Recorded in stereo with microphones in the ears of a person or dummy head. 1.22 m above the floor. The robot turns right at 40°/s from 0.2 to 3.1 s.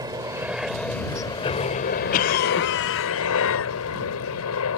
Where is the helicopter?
20° right; by 4.8 s 95° left.